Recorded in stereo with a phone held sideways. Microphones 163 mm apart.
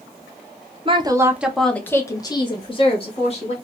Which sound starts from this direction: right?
A woman speaking, at 0.8 s.